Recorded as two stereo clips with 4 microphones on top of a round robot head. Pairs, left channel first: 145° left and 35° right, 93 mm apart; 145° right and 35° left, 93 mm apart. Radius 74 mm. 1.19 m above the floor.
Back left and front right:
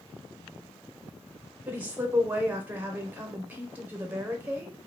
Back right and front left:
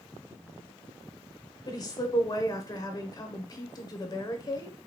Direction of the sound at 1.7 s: 105° right.